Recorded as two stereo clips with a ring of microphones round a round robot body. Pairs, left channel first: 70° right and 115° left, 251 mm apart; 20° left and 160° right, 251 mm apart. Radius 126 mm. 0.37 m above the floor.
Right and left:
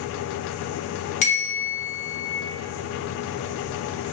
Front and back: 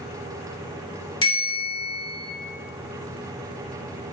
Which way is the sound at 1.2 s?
35° right.